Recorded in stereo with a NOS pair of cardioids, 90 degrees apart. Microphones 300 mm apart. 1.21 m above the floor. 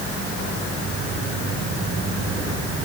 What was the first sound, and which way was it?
Only background noise.